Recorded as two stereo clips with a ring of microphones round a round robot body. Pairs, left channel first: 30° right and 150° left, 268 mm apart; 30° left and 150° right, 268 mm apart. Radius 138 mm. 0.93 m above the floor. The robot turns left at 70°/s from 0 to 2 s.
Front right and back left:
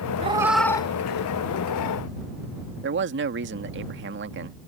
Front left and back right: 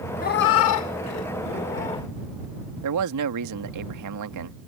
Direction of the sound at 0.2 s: 85° left.